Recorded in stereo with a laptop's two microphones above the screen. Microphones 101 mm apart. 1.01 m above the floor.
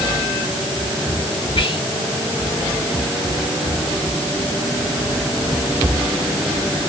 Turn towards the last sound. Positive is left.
turn(degrees=55)  # may be behind; listen again after turning